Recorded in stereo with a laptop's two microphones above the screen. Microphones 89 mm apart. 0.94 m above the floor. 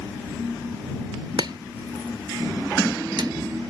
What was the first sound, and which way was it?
Chopping, 60° right (ahead or behind).